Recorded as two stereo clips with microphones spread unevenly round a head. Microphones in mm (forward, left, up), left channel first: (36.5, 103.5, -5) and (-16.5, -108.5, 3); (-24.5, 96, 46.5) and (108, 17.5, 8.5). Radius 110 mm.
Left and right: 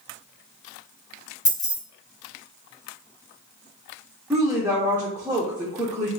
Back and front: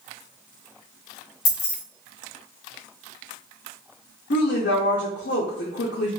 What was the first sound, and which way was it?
Keys jangling, 150° left.